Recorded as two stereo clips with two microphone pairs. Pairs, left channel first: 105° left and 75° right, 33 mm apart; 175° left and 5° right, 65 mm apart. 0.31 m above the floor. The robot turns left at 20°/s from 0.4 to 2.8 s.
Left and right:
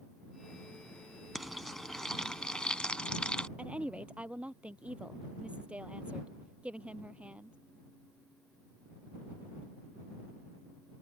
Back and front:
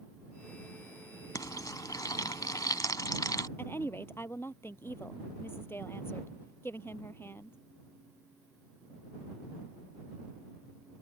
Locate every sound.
1.4 s frying: 165° right; by 3.5 s 165° left
3.6 s a woman speaking: 130° right